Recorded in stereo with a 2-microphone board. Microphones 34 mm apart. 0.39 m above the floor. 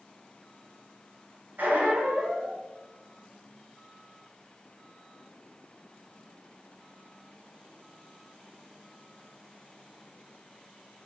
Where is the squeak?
70° right (ahead or behind), 0.7 m.